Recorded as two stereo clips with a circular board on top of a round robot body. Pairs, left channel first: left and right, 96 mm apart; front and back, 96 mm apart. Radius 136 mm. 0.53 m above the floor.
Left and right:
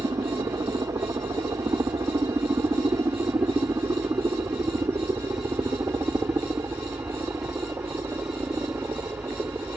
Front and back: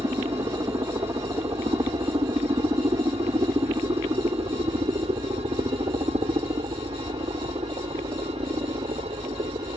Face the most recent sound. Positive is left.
turn(degrees=-155)